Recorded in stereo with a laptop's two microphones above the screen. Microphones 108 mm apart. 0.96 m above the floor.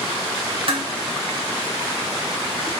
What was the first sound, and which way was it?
Dishes clattering, 55° right (ahead or behind).